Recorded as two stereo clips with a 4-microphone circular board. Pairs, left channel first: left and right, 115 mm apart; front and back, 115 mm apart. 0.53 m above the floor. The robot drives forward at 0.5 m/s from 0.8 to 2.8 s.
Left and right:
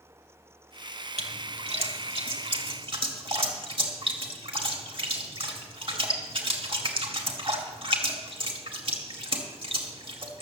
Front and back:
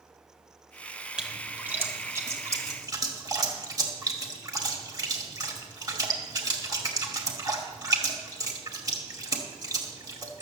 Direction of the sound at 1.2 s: 100° right.